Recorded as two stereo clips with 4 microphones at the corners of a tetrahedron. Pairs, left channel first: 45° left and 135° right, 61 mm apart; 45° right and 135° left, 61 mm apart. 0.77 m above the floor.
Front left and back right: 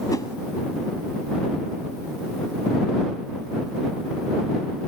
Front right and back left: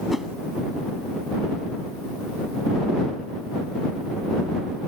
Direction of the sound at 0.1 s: 50° left.